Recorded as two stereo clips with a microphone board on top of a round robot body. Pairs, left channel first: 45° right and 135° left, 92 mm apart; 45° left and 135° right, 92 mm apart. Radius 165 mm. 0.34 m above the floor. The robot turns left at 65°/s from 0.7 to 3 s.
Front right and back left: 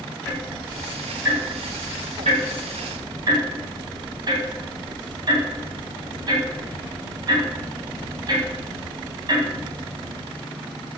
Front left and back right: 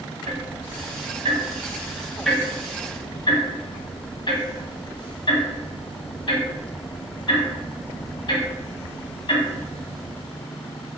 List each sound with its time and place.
0.3 s ticking: 125° right, 1.0 m; by 10.2 s 85° left, 1.0 m